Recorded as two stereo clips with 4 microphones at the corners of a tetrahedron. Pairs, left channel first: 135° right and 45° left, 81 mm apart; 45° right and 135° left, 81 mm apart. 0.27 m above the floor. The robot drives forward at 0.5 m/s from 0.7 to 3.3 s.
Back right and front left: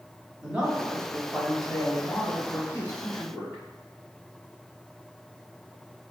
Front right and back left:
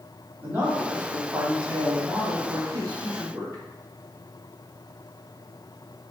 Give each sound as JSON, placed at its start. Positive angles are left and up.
{"t": 0.4, "sound": "a man speaking", "azimuth_deg": 110, "distance_m": 1.1}